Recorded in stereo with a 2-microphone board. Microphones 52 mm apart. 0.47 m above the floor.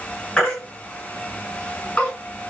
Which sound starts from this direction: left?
A baby crying, at 0.4 s.